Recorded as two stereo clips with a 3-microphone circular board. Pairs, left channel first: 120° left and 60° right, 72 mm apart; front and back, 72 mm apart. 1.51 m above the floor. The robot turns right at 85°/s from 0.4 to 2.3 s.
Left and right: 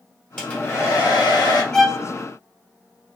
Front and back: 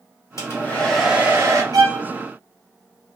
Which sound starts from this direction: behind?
A violin, at 1.7 s.